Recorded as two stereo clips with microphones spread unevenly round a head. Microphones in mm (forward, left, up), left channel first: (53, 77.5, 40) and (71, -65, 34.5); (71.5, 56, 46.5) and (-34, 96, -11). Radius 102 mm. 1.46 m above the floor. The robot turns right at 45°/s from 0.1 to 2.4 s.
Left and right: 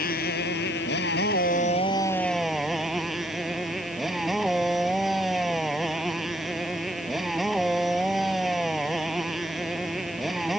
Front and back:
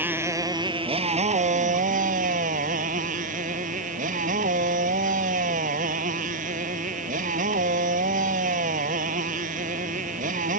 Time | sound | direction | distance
0.0 | a motorcycle | 85° left | ?